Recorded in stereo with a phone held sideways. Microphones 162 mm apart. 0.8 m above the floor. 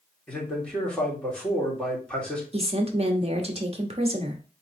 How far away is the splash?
No splash in this recording.